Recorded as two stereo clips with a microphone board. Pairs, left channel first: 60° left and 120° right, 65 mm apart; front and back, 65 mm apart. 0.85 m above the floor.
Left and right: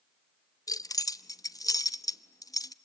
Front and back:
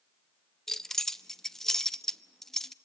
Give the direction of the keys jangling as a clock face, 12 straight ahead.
9 o'clock.